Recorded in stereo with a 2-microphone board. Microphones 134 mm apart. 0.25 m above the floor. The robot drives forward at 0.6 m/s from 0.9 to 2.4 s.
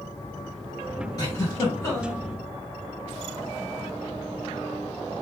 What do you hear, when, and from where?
1.2 s a giggle: 30° left (ahead or behind), 1.8 m; by 2.2 s 25° left (ahead or behind), 2 m